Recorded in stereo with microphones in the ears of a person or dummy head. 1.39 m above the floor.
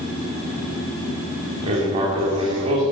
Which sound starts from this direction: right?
Writing, at 1.6 s.